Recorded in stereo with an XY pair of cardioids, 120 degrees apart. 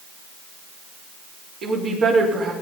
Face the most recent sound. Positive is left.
turn(degrees=-60)